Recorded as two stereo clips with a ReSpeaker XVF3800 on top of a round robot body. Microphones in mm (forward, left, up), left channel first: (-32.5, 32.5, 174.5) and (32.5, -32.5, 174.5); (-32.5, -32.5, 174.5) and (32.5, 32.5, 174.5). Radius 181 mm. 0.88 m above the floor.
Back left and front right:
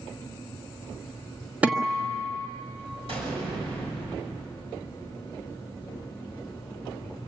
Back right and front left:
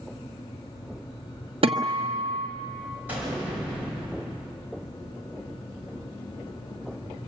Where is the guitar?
30° left, 1.3 m.